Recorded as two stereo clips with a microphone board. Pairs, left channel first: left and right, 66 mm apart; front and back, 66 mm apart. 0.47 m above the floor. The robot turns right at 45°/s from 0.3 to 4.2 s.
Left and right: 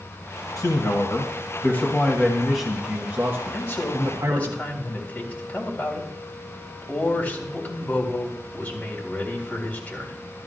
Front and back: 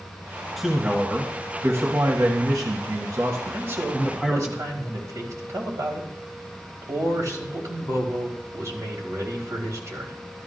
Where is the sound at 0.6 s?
90° left, 1.8 m; by 4.5 s 110° right, 1.8 m.